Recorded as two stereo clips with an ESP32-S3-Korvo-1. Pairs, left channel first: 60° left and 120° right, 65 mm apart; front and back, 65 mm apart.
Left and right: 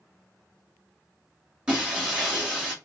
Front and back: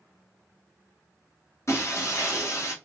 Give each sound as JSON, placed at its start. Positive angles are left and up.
{"t": 1.7, "sound": "breaking glass", "azimuth_deg": -45, "distance_m": 2.5}